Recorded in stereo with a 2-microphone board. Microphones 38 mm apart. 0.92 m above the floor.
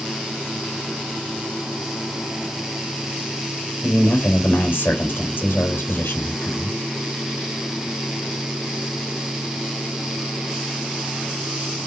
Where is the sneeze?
No sneeze in this recording.